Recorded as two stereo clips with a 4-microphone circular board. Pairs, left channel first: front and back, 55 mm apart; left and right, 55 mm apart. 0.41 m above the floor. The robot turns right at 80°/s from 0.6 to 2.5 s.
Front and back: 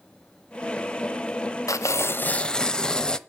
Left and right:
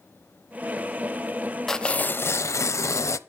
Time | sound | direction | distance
1.7 | tearing paper | 10° left | 0.6 m